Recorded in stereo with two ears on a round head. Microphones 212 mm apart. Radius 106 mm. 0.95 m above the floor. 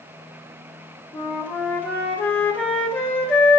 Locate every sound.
1.1 s a flute: 5° left (ahead or behind), 2 m